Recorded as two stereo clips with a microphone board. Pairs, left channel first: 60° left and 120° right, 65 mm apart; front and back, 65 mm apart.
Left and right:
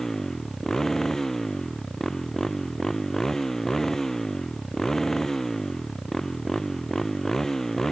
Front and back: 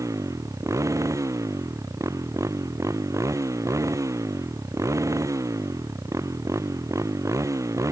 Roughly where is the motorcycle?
Behind left.